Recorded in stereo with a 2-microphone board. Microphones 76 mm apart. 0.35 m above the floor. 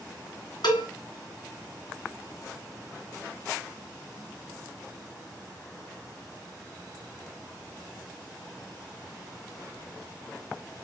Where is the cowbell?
70° left (ahead or behind), 2.5 m.